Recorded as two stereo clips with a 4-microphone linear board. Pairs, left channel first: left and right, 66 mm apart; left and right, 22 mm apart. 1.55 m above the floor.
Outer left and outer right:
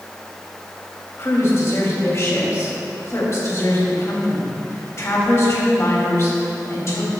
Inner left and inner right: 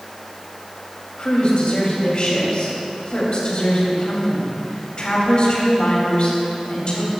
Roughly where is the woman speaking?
Left.